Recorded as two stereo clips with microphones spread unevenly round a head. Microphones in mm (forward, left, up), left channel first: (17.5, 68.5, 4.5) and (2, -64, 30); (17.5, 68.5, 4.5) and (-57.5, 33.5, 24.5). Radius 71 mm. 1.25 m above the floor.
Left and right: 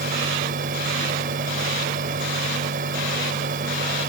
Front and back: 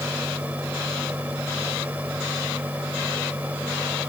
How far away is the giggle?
No giggle in this recording.